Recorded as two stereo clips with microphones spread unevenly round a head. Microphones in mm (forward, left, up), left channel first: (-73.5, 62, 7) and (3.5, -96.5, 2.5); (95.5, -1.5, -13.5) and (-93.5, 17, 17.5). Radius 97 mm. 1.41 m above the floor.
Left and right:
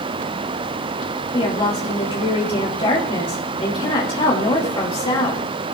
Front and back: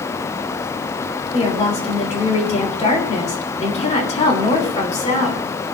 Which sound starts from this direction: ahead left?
A woman speaking, at 1.3 s.